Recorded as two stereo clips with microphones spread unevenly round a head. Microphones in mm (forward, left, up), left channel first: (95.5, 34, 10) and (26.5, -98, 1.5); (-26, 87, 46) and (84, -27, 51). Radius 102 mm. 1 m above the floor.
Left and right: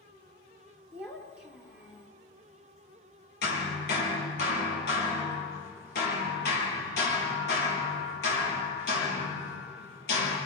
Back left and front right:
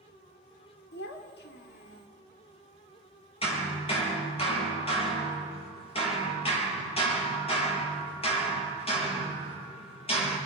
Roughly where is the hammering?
Left.